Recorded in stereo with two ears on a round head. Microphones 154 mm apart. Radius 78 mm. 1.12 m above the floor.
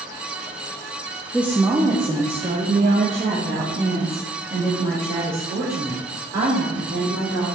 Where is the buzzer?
No buzzer in this recording.